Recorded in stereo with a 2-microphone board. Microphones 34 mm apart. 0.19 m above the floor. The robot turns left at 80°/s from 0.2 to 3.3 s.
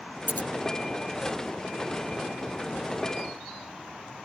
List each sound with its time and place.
0.3 s scissors: 85° left; by 0.5 s 70° left (ahead or behind)